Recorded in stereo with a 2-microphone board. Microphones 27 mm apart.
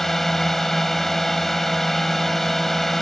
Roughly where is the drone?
Centre.